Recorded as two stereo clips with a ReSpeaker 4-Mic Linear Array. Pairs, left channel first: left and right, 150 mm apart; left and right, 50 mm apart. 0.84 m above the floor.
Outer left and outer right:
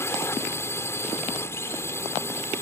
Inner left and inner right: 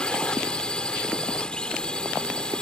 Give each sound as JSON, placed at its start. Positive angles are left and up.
{"t": 0.0, "sound": "a drone", "side_deg": 15}